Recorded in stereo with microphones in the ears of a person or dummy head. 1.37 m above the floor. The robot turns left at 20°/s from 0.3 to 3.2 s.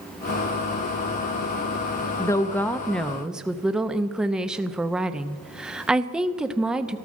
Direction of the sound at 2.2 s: 20° left (ahead or behind).